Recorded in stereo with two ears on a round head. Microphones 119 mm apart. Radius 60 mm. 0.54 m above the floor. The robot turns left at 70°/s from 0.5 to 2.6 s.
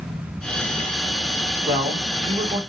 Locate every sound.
1.7 s a man speaking: 35° right, 1.7 m; by 2.6 s 105° right, 1.7 m